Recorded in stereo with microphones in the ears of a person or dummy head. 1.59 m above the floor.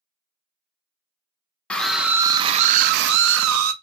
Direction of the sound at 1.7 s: 5° left (ahead or behind).